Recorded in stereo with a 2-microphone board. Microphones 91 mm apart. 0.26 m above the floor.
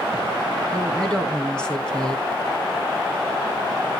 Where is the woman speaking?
10° left (ahead or behind), 1.9 m.